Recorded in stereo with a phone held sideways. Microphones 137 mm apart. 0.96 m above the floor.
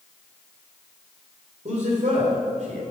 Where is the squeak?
I don't hear a squeak.